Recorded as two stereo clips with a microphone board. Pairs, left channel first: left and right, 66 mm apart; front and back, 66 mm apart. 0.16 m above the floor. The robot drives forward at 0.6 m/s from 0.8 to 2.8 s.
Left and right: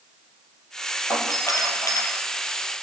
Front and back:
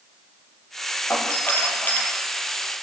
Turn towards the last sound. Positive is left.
turn(degrees=65)